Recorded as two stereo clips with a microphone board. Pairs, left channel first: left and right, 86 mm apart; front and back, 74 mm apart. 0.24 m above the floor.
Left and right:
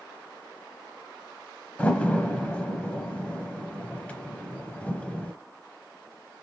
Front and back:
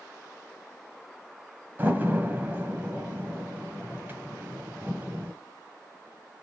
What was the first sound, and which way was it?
A door slam, 150° left.